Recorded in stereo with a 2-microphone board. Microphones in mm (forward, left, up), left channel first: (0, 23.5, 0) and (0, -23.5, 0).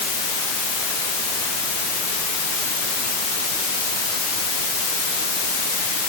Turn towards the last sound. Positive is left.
No sound to turn to.